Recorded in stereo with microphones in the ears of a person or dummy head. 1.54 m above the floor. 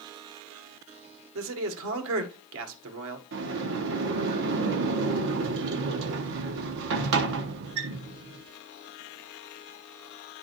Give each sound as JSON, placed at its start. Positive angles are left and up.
{"t": 1.4, "sound": "a man speaking", "side_deg": -75, "distance_m": 1.7}
{"t": 3.3, "sound": "a sliding door", "side_deg": -50, "distance_m": 0.7}